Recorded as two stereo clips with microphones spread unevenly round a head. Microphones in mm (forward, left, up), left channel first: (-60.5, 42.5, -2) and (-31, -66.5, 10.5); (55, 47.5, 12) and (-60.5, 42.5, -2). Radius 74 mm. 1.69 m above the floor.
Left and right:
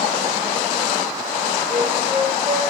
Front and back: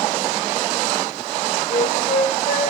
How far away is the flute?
About 6 m.